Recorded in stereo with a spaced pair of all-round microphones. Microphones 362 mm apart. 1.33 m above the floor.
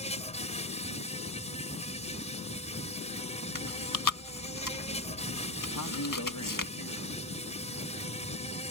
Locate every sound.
0.0 s an insect: 15° left (ahead or behind)
3.5 s chewing: 55° left (ahead or behind)
5.8 s a man speaking: 55° left (ahead or behind)